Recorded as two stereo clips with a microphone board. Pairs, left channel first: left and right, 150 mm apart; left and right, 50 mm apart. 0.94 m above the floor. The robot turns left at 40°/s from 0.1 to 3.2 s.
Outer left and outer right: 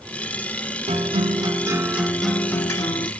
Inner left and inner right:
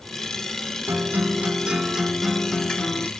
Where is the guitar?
125° right, 0.7 m; by 3.1 s 145° left, 0.7 m.